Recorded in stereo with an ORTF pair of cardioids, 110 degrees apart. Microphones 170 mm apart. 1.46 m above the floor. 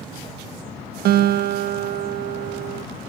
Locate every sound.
1.1 s a guitar: 70° right